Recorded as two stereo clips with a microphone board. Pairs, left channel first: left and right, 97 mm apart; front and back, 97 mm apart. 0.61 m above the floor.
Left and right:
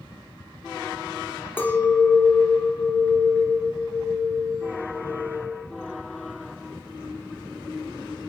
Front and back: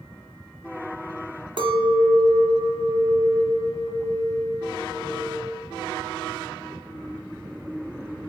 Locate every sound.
1.6 s a clink: 155° left, 0.6 m